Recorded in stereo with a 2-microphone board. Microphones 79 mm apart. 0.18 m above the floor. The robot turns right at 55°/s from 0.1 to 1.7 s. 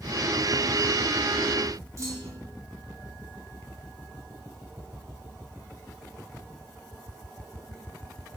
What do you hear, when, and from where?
2.0 s a clunk: 40° right (ahead or behind), 1.7 m